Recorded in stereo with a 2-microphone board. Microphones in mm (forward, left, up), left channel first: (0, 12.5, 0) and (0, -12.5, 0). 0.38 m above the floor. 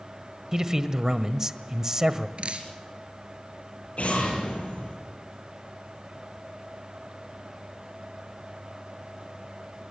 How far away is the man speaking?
About 1.5 m.